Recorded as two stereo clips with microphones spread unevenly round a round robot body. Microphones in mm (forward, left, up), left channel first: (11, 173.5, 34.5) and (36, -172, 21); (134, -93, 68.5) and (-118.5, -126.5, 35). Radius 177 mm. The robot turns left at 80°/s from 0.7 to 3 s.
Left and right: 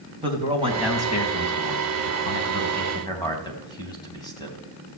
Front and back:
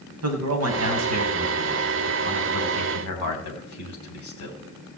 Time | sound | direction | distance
0.2 | a man speaking | 160° right | 4 m